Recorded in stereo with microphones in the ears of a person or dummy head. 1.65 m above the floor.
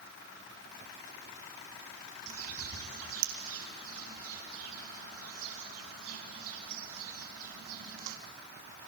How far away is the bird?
About 3.5 m.